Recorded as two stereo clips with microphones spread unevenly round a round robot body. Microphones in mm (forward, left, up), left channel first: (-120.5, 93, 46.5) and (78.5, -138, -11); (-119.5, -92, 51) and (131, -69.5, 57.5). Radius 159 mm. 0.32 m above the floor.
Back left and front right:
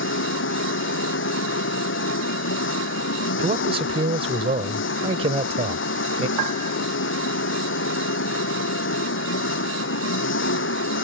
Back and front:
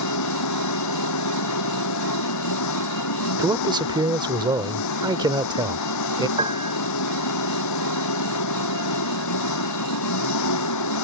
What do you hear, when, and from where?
0.0 s an engine running: straight behind
3.4 s a man speaking: 50° right
6.4 s a piano: 65° right